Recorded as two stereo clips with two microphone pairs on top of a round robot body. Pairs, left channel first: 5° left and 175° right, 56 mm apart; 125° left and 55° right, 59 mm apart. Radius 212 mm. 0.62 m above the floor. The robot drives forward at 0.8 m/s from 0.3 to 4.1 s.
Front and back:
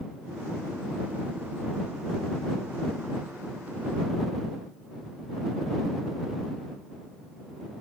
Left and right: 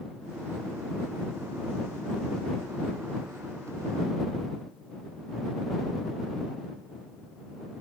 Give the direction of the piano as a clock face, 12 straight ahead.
I don't hear a piano.